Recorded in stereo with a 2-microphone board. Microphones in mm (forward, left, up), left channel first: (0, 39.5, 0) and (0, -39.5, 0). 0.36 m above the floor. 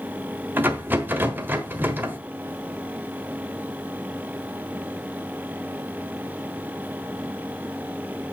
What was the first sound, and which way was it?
A rattle, 25° right (ahead or behind).